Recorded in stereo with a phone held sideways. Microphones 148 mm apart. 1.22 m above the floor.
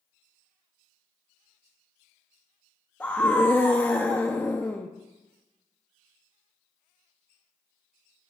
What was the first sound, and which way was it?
A scream, 10° left (ahead or behind).